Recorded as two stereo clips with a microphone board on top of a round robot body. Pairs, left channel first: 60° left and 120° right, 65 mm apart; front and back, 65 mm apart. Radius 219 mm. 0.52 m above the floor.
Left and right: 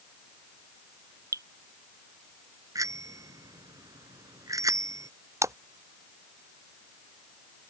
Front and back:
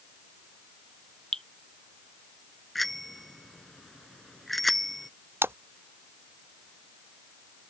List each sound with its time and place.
1.3 s dripping: 85° right
2.8 s a bicycle bell: 90° right
5.4 s a splash: 135° right